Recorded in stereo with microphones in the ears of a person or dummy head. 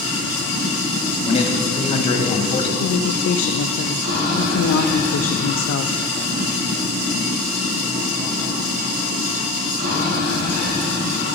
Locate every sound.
0.0 s running water: 45° right (ahead or behind), 3 m
1.3 s a man speaking: 30° left (ahead or behind), 1.3 m
2.8 s a woman speaking: 65° left (ahead or behind), 0.5 m